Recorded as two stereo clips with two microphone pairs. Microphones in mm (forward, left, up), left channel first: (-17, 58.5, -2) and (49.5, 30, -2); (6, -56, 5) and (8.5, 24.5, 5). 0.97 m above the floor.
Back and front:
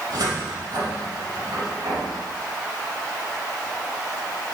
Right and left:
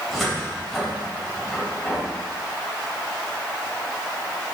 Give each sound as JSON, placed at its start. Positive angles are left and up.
{"t": 0.1, "sound": "a cupboard door", "azimuth_deg": -5, "distance_m": 3.5}